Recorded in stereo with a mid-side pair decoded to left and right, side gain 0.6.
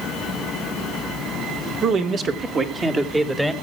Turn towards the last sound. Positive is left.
turn(degrees=-10)